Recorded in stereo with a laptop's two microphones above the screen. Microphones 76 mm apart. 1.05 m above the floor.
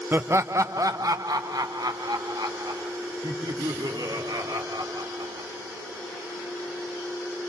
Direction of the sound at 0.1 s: 30° right (ahead or behind).